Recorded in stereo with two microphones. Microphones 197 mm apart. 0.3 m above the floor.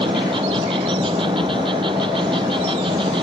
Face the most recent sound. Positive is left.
turn(degrees=-25)  # may be behind; listen again after turning